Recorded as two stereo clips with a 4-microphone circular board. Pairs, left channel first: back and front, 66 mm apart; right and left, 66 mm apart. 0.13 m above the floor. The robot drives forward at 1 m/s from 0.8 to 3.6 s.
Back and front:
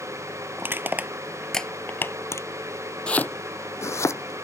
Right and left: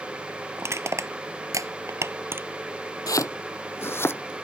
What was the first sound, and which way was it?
Crushing, 50° left.